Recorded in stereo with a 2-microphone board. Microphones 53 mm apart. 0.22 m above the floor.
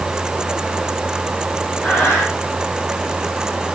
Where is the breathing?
25° left (ahead or behind), 4.5 m.